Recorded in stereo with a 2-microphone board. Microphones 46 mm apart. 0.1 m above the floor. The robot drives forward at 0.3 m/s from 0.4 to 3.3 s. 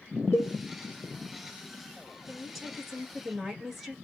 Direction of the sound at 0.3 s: 70° left (ahead or behind).